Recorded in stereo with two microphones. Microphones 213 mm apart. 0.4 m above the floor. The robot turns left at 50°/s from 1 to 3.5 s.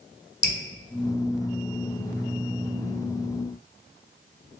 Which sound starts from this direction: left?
Dripping, at 0.4 s.